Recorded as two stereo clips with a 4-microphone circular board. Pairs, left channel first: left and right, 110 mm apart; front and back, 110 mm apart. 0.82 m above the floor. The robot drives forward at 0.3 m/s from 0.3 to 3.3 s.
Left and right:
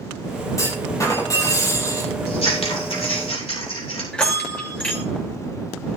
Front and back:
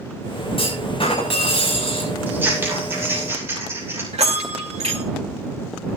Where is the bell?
170° left, 2.5 m.